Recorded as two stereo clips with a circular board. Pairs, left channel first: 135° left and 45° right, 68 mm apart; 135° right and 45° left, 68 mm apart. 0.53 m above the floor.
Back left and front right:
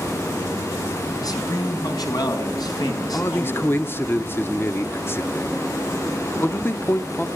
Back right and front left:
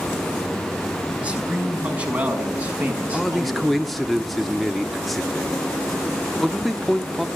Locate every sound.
1.2 s a man speaking: 115° left, 4.5 m
3.1 s a man speaking: 135° left, 1.1 m